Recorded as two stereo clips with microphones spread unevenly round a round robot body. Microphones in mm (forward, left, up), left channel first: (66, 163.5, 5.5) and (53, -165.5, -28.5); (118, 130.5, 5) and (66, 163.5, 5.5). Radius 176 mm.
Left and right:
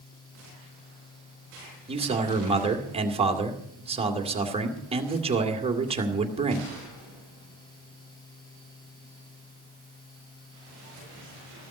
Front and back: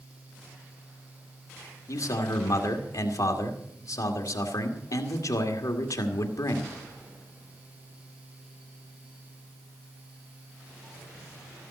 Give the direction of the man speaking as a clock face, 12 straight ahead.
1 o'clock.